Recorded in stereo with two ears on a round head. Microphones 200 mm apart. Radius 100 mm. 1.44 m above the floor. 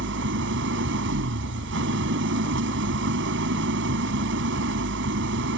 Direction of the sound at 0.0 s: 55° right (ahead or behind).